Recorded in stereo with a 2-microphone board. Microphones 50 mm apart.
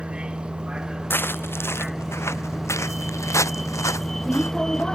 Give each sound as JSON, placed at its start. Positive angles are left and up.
{"t": 0.0, "sound": "a vehicle", "side_deg": -20}
{"t": 1.1, "sound": "footsteps", "side_deg": 45}